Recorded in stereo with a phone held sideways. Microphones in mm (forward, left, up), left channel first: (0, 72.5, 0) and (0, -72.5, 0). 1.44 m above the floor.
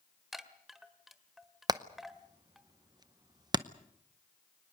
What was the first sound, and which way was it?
A chime, centre (ahead or behind).